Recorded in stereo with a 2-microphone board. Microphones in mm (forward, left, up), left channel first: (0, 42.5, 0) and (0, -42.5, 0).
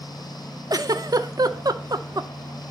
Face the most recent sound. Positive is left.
turn(degrees=-50)  # may be behind; listen again after turning